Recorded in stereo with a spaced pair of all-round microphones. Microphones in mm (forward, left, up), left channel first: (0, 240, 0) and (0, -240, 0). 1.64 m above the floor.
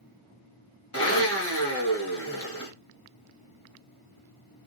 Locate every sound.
0.9 s a blender: 30° left (ahead or behind), 1.0 m